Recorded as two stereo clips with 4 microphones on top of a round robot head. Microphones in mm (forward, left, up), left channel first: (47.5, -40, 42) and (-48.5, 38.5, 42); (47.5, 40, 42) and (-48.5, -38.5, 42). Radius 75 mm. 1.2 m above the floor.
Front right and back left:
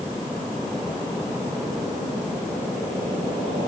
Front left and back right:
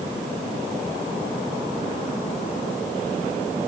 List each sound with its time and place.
Only background noise.